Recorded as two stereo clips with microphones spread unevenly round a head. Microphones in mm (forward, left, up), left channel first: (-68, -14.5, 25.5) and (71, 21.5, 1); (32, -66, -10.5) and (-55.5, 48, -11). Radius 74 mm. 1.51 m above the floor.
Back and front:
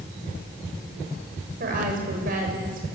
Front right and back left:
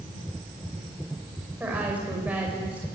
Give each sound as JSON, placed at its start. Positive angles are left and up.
{"t": 1.6, "sound": "a woman speaking", "azimuth_deg": 45, "distance_m": 6.5}